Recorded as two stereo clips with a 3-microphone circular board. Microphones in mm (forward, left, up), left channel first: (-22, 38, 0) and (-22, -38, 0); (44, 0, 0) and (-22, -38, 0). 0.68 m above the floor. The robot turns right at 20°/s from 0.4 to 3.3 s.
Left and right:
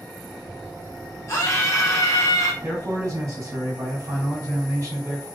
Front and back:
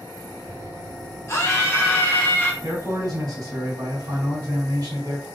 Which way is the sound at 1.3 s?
65° left.